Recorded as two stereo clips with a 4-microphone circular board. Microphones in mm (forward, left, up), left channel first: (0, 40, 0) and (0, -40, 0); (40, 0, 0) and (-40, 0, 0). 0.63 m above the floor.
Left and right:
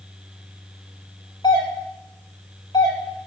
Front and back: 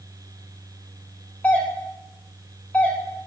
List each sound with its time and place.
1.4 s a doorbell: 70° left, 4 m